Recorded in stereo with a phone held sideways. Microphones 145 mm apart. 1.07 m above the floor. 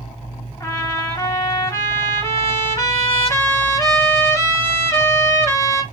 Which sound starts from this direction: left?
A trumpet, at 0.6 s.